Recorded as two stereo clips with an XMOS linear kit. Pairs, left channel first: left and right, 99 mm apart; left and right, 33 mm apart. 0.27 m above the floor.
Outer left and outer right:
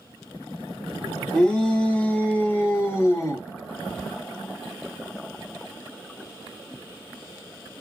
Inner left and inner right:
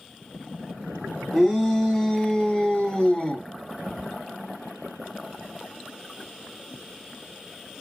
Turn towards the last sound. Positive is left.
turn(degrees=30)  # may be behind; listen again after turning